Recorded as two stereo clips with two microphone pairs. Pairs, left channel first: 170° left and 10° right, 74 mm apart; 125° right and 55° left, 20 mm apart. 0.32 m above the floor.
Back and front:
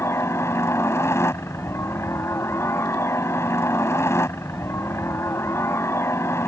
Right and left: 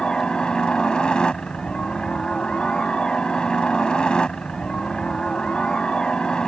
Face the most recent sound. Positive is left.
turn(degrees=-155)